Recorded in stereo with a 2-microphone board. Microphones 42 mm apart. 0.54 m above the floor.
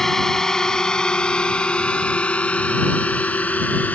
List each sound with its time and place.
0.0 s a drone: 10° left (ahead or behind); by 3.9 s 40° left (ahead or behind)